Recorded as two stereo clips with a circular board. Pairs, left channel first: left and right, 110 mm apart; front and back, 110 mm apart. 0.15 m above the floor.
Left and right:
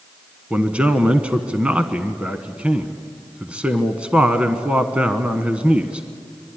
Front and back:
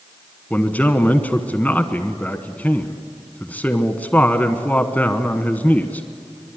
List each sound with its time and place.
0.5 s a man speaking: 40° right, 1.1 m